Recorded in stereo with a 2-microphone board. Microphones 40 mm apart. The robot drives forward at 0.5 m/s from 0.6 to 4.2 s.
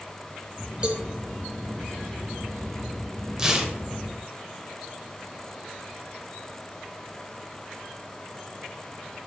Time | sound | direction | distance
0.8 | a cowbell | 25° right (ahead or behind) | 0.8 m
3.4 | tearing paper | 15° right (ahead or behind) | 0.8 m